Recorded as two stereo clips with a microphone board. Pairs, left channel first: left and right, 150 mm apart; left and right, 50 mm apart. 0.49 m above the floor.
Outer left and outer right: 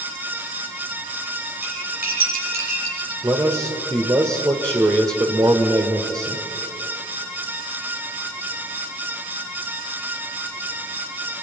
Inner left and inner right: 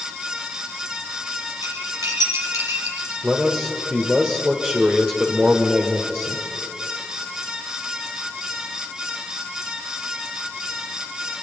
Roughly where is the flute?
I don't hear a flute.